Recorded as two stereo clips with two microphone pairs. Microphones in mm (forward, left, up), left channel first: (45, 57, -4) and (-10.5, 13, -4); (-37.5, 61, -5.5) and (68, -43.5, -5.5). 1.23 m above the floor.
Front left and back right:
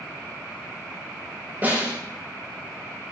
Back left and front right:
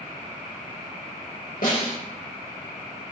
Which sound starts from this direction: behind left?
A snare drum, at 1.6 s.